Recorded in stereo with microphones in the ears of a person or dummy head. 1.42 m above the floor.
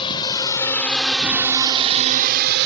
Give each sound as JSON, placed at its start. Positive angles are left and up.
{"t": 0.0, "sound": "a drone", "side_deg": 35}